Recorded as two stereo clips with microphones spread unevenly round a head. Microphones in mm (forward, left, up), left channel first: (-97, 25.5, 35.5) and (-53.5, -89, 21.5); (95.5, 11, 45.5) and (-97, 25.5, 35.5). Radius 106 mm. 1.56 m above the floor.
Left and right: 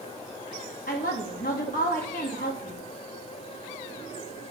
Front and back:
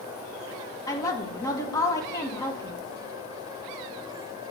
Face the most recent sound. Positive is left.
turn(degrees=70)